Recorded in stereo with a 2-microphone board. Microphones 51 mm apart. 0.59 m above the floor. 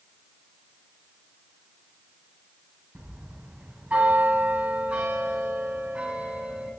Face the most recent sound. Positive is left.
turn(degrees=-25)  # may be behind; listen again after turning